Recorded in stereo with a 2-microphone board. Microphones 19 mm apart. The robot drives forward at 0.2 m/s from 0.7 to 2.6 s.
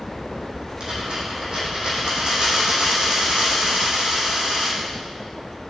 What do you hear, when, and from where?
0.8 s a dropped coin: 80° right, 3.5 m; by 4.8 s 75° right (ahead or behind), 3.5 m